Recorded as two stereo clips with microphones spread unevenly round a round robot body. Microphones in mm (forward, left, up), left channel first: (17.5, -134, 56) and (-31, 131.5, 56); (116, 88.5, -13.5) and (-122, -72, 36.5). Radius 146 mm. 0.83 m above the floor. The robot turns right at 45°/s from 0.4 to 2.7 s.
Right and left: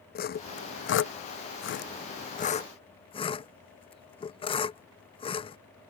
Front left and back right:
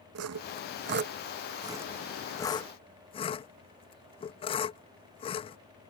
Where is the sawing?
120° right; by 5.6 s 15° right.